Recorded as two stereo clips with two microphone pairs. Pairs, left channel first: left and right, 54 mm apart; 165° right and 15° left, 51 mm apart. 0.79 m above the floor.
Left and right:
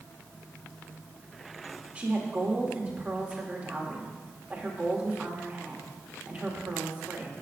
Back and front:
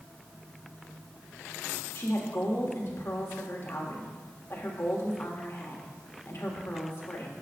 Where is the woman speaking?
155° right, 1.6 m.